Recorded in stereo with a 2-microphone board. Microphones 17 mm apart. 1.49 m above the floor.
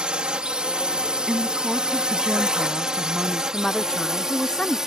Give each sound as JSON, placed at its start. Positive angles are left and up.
{"t": 0.0, "sound": "a drone", "side_deg": -70}
{"t": 1.3, "sound": "a woman speaking", "side_deg": -30}
{"t": 3.5, "sound": "a woman speaking", "side_deg": 45}